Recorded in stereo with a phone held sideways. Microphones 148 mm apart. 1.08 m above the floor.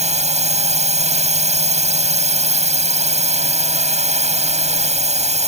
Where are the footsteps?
No footsteps in this recording.